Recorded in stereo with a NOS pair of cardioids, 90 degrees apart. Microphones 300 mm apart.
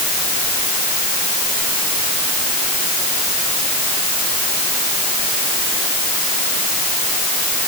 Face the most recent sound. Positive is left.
No sound to turn to.